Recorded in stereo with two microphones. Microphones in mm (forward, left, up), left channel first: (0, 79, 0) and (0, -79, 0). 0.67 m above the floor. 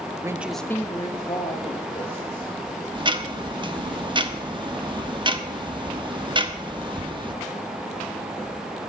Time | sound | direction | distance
0.2 | a woman speaking | 20° right (ahead or behind) | 0.9 m
3.0 | ticking | 30° right (ahead or behind) | 1.1 m